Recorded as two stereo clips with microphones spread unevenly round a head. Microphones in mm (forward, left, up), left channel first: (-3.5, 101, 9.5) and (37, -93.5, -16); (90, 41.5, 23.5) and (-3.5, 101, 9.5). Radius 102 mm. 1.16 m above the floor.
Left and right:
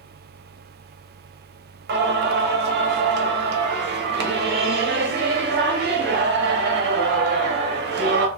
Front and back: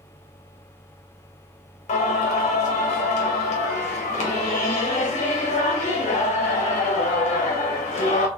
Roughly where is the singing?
Ahead right.